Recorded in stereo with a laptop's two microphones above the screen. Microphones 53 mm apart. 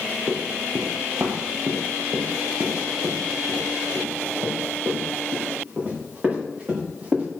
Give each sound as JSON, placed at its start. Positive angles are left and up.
{"t": 0.3, "sound": "running footsteps", "side_deg": -55, "distance_m": 1.6}